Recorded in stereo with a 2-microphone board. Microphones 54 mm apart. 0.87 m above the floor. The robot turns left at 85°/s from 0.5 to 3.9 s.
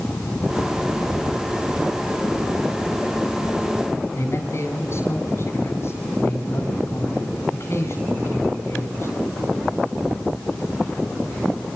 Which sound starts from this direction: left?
A man speaking, at 4.2 s.